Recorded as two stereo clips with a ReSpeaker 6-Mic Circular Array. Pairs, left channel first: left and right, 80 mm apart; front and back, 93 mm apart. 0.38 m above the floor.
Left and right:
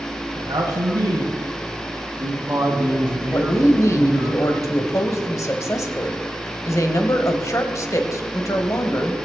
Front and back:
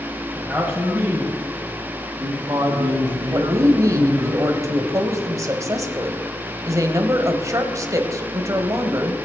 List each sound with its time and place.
0.3 s a man speaking: 85° right, 2.5 m; by 4.3 s 175° right, 3 m
3.3 s a woman speaking: 130° left, 1.5 m